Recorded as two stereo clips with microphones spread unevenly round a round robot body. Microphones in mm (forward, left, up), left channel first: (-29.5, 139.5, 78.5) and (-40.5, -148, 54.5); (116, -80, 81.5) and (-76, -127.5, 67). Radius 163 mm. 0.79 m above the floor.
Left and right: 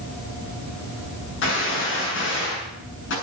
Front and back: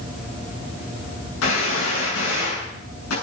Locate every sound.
1.4 s a gunshot: 35° left, 7.5 m